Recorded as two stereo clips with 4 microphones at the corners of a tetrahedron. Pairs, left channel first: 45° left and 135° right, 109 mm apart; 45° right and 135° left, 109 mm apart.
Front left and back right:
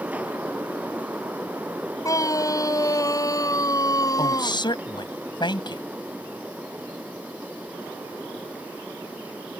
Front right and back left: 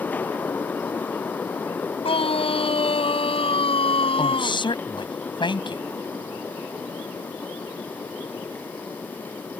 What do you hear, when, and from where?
2.0 s a scream: 15° right; by 4.6 s 10° right
4.2 s a woman speaking: straight ahead